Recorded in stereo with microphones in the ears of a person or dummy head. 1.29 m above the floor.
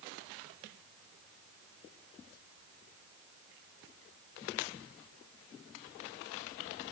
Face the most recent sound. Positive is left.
No sound to turn to.